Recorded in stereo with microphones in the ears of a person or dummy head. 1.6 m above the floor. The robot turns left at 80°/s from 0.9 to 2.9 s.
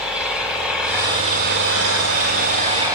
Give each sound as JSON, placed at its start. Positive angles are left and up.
{"t": 0.0, "sound": "an engine running", "azimuth_deg": -5, "distance_m": 5.5}